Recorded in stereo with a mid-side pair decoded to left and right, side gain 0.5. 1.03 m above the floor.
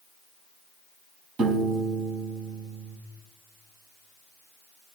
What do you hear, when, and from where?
1.4 s a piano: 60° right, 5.5 m